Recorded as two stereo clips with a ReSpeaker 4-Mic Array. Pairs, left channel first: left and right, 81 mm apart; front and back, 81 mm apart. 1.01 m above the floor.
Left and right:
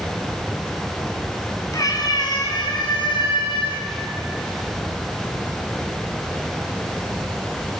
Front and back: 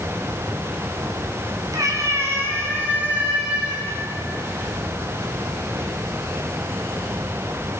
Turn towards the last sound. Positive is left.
turn(degrees=100)